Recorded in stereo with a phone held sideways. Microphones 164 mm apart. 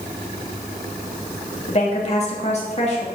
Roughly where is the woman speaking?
Left.